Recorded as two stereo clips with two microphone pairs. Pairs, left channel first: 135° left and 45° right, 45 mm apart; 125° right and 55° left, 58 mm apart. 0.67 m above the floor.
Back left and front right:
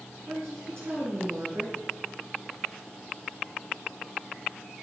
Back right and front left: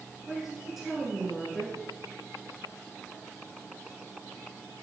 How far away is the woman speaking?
About 8 m.